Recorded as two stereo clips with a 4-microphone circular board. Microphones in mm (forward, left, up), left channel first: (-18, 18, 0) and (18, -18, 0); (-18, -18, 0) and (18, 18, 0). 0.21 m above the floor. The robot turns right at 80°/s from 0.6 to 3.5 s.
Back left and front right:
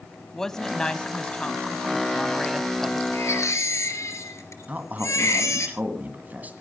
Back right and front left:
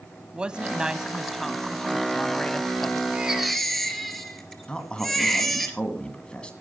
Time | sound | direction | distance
0.3 | a woman speaking | 70° left | 1.0 m
3.1 | a baby crying | 110° left | 2.5 m
4.7 | a man speaking | 75° right | 1.8 m